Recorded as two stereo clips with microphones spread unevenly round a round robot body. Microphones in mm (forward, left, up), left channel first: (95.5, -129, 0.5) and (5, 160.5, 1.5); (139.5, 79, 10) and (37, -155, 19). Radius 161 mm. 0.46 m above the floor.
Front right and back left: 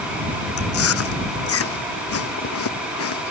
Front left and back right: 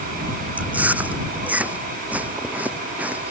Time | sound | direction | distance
0.6 | chewing | 30° right | ?